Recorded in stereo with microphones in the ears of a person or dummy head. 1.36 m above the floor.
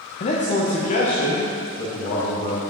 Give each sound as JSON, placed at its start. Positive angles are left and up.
{"t": 0.2, "sound": "a man speaking", "side_deg": 35, "distance_m": 0.9}